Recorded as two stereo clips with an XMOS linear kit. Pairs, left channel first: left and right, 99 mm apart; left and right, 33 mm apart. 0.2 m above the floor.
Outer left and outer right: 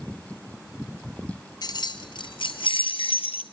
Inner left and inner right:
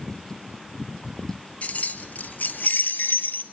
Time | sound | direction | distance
1.6 | keys jangling | 45° left (ahead or behind) | 2 m